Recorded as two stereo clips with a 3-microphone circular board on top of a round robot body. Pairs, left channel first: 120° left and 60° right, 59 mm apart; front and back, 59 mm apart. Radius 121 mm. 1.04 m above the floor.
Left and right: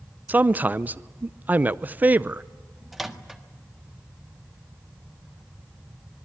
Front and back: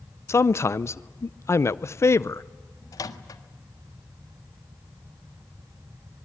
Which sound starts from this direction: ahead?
A man speaking, at 0.3 s.